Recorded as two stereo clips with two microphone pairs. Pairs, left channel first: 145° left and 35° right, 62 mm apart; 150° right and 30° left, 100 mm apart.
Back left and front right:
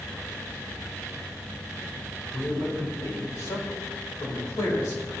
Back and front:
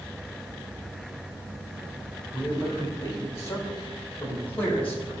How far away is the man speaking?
About 4.5 m.